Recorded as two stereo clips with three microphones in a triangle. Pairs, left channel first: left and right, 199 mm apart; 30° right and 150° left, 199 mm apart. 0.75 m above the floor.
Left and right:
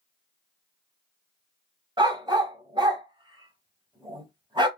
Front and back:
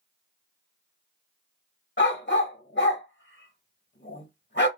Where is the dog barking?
25° right, 1.1 m.